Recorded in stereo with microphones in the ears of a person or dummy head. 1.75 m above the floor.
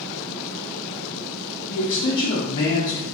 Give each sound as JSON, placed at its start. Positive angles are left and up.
{"t": 1.7, "sound": "a man speaking", "side_deg": 50, "distance_m": 0.8}